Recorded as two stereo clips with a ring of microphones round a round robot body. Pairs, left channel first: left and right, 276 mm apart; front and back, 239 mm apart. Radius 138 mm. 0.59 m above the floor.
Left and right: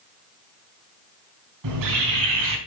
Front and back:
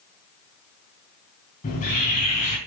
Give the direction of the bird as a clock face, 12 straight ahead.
2 o'clock.